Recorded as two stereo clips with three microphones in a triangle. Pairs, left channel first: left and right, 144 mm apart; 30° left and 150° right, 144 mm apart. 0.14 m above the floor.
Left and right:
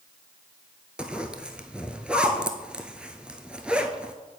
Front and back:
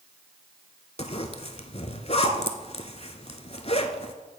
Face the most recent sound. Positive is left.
turn(degrees=-10)